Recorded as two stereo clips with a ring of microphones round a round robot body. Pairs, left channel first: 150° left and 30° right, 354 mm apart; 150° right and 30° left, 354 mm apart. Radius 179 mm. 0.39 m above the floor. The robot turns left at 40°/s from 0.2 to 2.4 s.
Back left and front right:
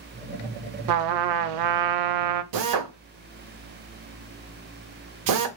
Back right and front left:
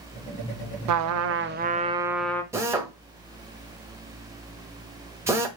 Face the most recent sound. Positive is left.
turn(degrees=-50)